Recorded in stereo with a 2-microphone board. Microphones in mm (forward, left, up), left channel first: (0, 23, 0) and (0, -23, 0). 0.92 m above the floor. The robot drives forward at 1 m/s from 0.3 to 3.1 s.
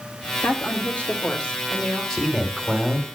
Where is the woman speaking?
55° left (ahead or behind), 1.7 m; by 2.0 s 30° left (ahead or behind), 3 m.